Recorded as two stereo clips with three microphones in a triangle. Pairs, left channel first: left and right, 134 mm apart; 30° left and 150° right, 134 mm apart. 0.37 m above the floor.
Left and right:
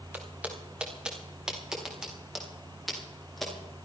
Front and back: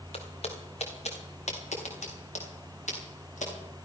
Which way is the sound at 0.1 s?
10° right.